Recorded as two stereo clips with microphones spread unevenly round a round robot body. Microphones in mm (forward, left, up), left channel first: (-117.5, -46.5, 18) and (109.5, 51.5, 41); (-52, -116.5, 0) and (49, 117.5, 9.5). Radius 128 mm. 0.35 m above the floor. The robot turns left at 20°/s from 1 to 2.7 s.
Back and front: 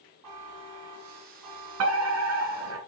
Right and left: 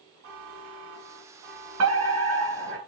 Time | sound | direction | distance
0.2 | a buzzer | 30° left | 3 m
1.8 | a fire alarm | 40° left | 3.5 m